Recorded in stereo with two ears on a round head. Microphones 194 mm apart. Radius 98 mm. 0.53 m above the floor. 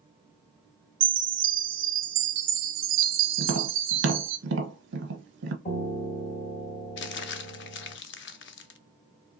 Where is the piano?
45° left (ahead or behind), 1.9 m.